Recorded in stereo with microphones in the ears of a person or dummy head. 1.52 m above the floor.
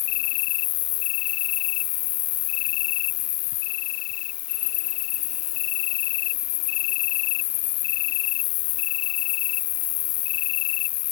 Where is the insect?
60° left (ahead or behind).